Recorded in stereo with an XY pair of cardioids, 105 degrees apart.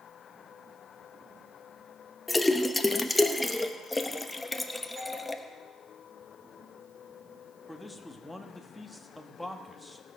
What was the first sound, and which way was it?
A splash, 10° left.